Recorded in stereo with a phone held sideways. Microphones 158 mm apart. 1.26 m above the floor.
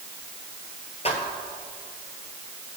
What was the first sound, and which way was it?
Footsteps, 40° left (ahead or behind).